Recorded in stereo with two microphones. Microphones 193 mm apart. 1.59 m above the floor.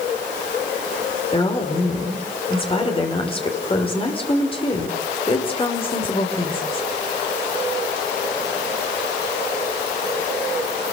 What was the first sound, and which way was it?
A woman speaking, 30° left (ahead or behind).